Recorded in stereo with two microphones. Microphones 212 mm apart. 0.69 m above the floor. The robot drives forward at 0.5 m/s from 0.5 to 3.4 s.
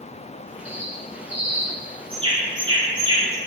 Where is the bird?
30° right (ahead or behind), 2.5 m; by 3.4 s 20° right (ahead or behind), 3.5 m.